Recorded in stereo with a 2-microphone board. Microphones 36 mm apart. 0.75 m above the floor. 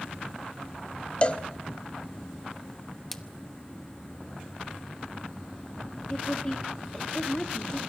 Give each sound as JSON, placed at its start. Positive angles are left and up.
{"t": 1.2, "sound": "a cowbell", "side_deg": 30, "distance_m": 0.7}
{"t": 3.1, "sound": "a splash", "side_deg": 5, "distance_m": 0.9}
{"t": 6.1, "sound": "a woman speaking", "side_deg": 25, "distance_m": 1.9}